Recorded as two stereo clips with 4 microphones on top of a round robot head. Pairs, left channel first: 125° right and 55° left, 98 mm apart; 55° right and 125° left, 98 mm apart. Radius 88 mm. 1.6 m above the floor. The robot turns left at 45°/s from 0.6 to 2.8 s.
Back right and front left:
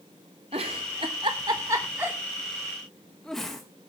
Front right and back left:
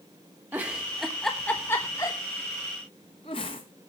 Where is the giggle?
55° left, 0.9 m; by 3.6 s 40° right, 0.9 m.